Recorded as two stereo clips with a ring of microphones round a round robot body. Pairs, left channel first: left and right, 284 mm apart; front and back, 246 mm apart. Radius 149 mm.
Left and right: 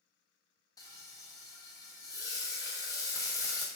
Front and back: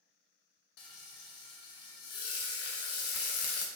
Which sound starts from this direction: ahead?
Frying, at 0.8 s.